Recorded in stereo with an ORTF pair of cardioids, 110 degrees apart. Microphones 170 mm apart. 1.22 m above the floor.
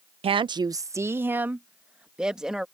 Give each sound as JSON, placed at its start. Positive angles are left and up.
{"t": 0.2, "sound": "a woman speaking", "azimuth_deg": -35}